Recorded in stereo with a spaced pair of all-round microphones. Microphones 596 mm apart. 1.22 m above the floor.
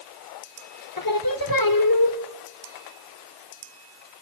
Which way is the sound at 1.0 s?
40° left (ahead or behind).